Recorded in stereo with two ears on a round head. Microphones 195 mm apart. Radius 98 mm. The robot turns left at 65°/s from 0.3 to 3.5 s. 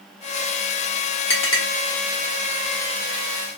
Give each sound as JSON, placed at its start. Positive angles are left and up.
{"t": 1.3, "sound": "a clink", "side_deg": 70, "distance_m": 1.2}